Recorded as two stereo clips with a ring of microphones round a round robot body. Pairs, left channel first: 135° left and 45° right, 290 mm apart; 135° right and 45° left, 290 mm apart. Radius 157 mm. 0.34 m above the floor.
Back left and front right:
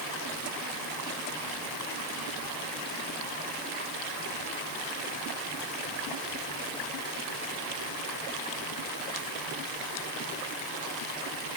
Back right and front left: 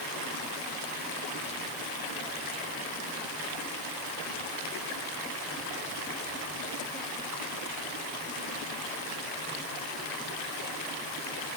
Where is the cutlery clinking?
I don't hear cutlery clinking.